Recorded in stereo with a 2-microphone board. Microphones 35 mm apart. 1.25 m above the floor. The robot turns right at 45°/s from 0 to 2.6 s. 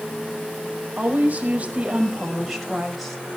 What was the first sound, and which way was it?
A woman speaking, 75° right.